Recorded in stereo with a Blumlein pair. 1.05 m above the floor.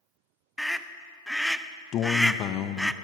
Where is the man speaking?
30° left, 0.6 m.